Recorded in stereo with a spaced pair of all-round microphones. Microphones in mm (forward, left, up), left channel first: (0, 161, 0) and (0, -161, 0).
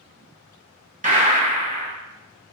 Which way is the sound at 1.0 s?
25° right (ahead or behind).